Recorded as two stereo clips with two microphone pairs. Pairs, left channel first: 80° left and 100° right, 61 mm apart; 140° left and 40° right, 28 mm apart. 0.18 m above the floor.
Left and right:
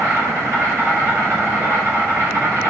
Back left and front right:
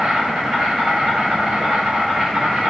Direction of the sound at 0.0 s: 75° right.